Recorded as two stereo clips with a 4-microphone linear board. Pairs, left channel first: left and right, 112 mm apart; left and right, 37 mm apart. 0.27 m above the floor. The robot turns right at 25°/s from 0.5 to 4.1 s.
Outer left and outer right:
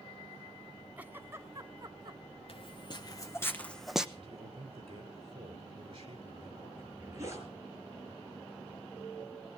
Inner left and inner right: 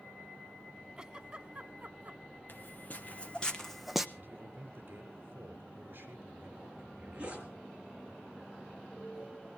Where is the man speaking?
45° right (ahead or behind), 4.5 m.